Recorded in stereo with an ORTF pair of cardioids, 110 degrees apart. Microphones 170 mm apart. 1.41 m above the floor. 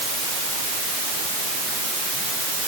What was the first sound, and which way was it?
Only background noise.